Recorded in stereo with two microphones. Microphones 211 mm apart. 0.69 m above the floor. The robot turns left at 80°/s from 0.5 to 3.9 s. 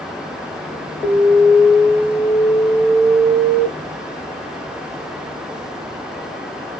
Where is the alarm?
175° right, 1.6 m; by 3.7 s 25° right, 1.6 m.